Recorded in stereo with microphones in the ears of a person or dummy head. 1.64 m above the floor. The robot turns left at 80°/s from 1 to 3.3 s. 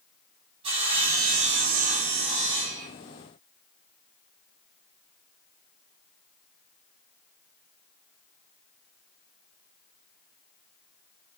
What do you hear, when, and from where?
0.6 s sawing: 35° right, 6 m; by 2.9 s 175° left, 6 m